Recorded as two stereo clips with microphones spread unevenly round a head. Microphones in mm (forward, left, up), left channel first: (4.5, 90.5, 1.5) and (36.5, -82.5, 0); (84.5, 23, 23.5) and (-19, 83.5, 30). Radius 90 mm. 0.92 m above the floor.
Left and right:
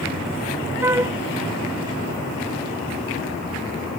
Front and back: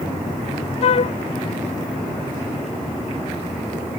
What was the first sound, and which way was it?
A flute, 5° right.